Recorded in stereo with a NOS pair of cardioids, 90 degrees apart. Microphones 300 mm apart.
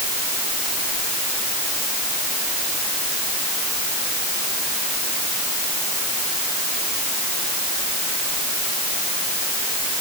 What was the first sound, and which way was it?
Only background noise.